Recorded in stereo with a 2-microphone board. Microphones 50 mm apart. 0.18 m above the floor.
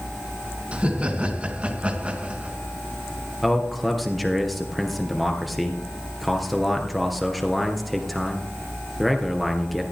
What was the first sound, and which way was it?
Laughter, 25° right (ahead or behind).